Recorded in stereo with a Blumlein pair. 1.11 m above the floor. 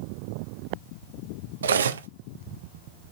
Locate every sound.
1.6 s cutlery clinking: 70° right, 0.5 m